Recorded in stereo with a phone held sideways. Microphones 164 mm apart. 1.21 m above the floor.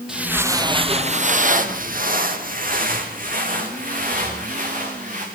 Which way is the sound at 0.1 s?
5° right (ahead or behind).